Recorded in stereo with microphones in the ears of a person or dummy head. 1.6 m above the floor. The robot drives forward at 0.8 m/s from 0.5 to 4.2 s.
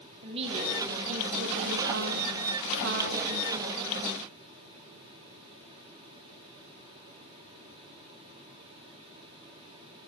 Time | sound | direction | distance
0.2 | a woman speaking | 30° right (ahead or behind) | 1.7 m